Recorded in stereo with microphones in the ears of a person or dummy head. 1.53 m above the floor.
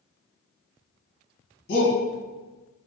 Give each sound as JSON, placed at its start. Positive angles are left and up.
{"t": 1.7, "sound": "a shout", "side_deg": 60, "distance_m": 1.7}